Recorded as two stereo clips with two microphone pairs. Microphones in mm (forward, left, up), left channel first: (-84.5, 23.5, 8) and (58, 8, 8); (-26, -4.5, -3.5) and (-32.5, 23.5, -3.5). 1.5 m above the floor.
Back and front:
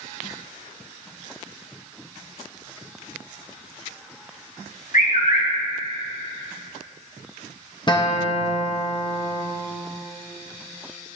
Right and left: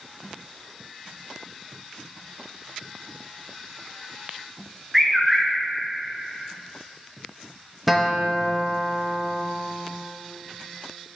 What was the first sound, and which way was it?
A bird, 175° right.